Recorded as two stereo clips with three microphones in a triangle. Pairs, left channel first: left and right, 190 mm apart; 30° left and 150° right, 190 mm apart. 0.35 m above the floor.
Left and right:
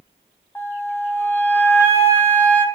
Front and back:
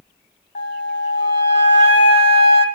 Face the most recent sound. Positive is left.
turn(degrees=10)